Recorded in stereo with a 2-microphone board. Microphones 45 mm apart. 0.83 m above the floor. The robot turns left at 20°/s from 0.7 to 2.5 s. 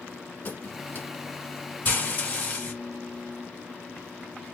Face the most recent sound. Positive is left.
turn(degrees=30)  # may be behind; listen again after turning